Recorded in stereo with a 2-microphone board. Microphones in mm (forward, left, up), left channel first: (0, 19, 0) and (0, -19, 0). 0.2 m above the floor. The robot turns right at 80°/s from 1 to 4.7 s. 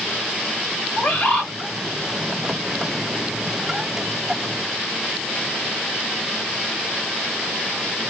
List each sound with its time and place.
1.0 s a bird: 120° left, 1.4 m; by 1.5 s 160° left, 1.4 m